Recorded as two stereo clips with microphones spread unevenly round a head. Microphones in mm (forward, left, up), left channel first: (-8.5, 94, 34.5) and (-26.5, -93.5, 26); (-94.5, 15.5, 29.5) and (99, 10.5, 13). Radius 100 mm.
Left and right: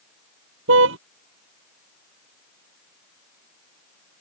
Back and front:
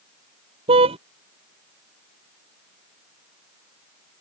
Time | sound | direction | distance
0.7 | a car horn | 65° right | ?